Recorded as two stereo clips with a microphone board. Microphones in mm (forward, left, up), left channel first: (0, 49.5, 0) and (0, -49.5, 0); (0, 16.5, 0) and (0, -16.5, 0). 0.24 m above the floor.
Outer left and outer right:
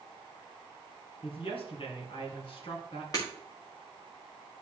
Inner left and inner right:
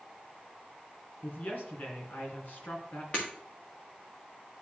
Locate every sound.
1.2 s a woman speaking: 60° left (ahead or behind), 2.5 m
3.1 s breaking glass: 40° left (ahead or behind), 3 m